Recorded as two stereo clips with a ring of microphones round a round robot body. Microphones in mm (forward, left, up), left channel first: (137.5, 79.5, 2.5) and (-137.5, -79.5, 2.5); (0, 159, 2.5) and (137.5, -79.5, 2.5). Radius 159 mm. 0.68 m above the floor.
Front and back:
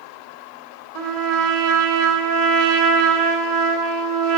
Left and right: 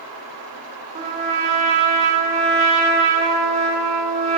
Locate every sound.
0.9 s a trumpet: 130° right, 1.8 m